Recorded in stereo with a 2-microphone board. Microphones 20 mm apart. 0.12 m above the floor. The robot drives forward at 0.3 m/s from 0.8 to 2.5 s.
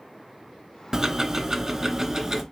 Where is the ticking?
25° right (ahead or behind), 0.8 m; by 2.4 s 20° right (ahead or behind), 1.0 m.